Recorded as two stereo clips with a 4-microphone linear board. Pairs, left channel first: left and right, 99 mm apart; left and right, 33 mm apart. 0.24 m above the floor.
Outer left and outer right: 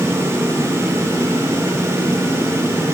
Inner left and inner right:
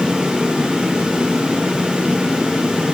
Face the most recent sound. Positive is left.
No sound to turn to.